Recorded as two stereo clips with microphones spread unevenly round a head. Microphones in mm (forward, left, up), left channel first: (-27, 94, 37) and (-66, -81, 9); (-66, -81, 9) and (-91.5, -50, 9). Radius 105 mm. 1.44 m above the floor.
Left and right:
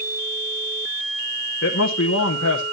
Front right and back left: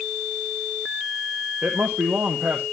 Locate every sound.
1.6 s a man speaking: 50° left, 1.0 m